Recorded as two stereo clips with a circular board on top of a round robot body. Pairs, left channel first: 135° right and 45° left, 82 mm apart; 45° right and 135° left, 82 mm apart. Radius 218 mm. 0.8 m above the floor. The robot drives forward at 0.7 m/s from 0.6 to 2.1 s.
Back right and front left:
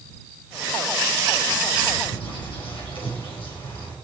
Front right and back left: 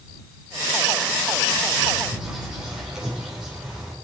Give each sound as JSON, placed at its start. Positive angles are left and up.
{"t": 2.0, "sound": "a bird", "azimuth_deg": -140, "distance_m": 4.0}